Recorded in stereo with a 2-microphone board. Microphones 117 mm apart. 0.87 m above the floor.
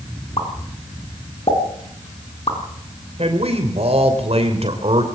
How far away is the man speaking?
About 3 m.